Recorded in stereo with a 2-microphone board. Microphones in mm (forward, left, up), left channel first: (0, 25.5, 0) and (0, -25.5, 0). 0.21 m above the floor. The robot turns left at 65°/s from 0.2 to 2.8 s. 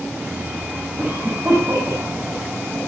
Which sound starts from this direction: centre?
A cough, at 1.0 s.